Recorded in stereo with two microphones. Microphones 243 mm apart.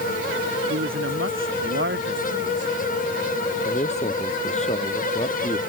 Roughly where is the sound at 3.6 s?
Left.